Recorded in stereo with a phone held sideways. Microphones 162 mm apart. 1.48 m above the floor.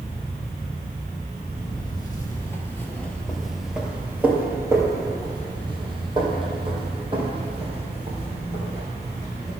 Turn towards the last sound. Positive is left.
turn(degrees=-40)  # may be behind; listen again after turning